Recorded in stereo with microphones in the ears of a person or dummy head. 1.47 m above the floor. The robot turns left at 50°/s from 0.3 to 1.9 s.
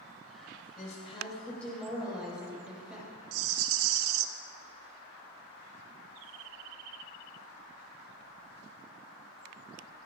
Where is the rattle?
80° right, 0.9 m.